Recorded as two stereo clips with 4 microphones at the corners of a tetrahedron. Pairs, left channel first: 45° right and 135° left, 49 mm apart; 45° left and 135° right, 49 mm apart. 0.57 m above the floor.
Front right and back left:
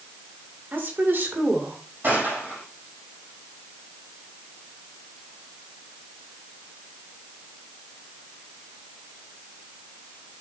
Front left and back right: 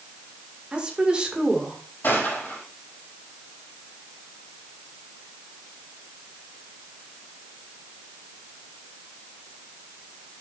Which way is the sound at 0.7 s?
160° left.